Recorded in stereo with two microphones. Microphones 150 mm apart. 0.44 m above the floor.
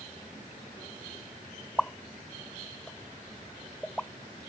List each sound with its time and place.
1.8 s a pop: 10° left (ahead or behind)